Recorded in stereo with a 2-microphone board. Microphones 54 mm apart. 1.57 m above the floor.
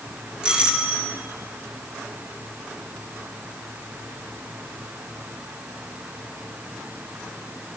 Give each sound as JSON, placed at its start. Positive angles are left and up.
{"t": 0.4, "sound": "a doorbell", "side_deg": -15, "distance_m": 2.5}